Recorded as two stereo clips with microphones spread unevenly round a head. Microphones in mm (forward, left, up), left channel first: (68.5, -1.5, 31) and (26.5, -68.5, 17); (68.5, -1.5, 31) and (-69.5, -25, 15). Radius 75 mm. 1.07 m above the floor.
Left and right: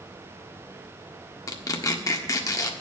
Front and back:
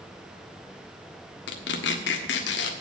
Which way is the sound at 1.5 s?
15° left.